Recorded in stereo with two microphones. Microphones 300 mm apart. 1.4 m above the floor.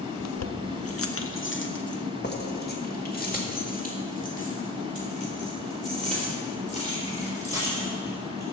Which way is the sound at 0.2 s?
60° left (ahead or behind).